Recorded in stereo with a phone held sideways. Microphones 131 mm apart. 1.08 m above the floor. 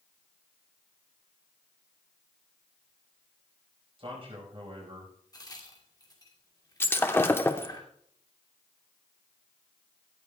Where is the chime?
No chime in this recording.